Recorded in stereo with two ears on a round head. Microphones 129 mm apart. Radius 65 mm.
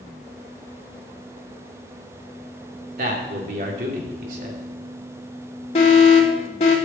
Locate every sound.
3.0 s a man speaking: 60° right (ahead or behind), 3.5 m
5.8 s an alarm: 45° left (ahead or behind), 3 m